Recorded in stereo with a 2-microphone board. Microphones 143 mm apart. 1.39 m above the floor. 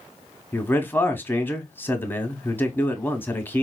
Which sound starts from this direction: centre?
A man speaking, at 0.5 s.